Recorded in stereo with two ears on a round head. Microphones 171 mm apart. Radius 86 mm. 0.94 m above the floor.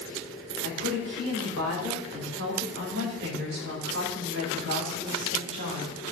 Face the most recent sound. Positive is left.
turn(degrees=-70)  # may be behind; listen again after turning